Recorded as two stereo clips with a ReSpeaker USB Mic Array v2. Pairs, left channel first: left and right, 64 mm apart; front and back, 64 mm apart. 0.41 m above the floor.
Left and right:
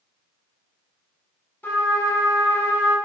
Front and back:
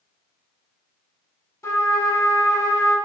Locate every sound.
1.6 s a trumpet: 35° left, 0.6 m